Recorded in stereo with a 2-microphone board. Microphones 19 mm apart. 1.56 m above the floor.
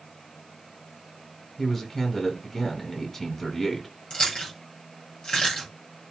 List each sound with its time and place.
1.6 s a man speaking: 25° left (ahead or behind), 6.5 m
4.1 s chewing: 60° left (ahead or behind), 9 m